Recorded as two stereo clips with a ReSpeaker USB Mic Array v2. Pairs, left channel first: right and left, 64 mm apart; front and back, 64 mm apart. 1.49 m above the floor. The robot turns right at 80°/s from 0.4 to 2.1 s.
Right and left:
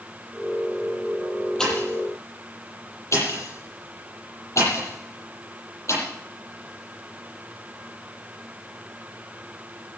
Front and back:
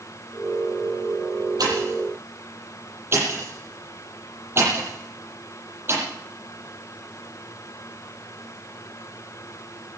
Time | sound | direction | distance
1.6 | a pop | 170° right | 9 m